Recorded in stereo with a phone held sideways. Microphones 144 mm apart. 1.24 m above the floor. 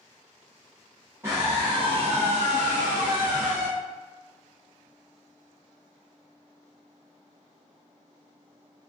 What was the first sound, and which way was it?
A scream, 20° right (ahead or behind).